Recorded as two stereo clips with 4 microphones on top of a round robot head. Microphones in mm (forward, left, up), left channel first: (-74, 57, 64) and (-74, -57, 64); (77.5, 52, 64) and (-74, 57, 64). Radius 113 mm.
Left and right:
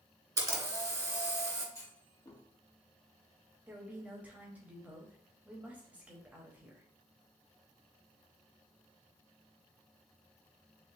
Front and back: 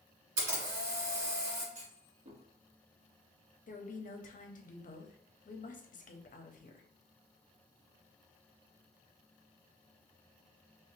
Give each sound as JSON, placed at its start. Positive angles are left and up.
{"t": 0.4, "sound": "a camera shutter", "azimuth_deg": -150, "distance_m": 2.0}
{"t": 1.8, "sound": "a clunk", "azimuth_deg": 150, "distance_m": 1.7}
{"t": 3.7, "sound": "a woman speaking", "azimuth_deg": -15, "distance_m": 0.9}